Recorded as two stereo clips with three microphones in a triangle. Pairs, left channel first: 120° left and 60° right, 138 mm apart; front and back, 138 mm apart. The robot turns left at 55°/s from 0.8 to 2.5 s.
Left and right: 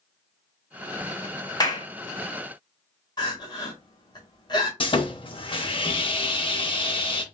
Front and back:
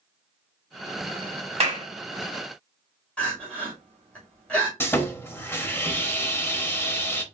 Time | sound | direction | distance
1.6 | a clap | 170° left | 1.0 m
3.2 | crying | 75° left | 1.5 m
4.8 | sawing | 70° left | 0.6 m